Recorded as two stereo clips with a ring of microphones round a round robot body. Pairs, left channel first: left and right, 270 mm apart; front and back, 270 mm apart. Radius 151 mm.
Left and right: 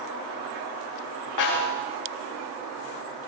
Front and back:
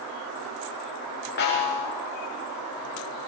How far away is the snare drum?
About 10 m.